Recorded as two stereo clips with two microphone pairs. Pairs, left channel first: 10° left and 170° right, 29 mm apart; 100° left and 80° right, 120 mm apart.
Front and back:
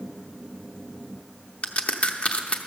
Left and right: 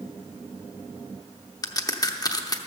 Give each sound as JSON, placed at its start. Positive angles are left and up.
{"t": 1.6, "sound": "a crack", "azimuth_deg": 45, "distance_m": 0.7}